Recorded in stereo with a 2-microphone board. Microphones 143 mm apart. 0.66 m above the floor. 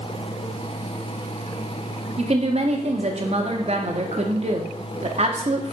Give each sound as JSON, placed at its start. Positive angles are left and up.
{"t": 2.2, "sound": "a woman speaking", "side_deg": -50, "distance_m": 0.8}